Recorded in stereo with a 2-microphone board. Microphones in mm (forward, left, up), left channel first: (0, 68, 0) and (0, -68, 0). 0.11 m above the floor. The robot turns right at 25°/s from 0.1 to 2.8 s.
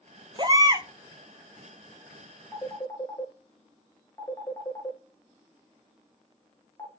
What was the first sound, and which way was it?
A baby crying, 35° right (ahead or behind).